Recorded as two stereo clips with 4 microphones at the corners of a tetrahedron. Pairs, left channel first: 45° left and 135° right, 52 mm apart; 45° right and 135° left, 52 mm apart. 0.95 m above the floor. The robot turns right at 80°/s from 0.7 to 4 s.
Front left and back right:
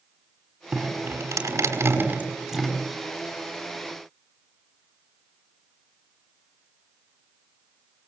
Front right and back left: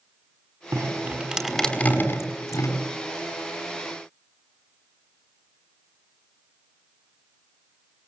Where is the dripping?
165° left, 5 m; by 2.8 s 30° right, 5 m.